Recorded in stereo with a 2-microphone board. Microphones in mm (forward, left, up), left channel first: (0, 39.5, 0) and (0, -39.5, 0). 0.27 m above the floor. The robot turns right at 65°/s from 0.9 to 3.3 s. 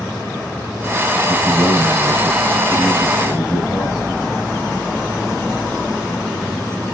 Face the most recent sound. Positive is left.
turn(degrees=25)